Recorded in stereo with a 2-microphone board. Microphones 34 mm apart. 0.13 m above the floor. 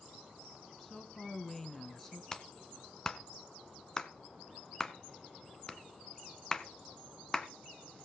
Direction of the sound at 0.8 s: 10° left (ahead or behind).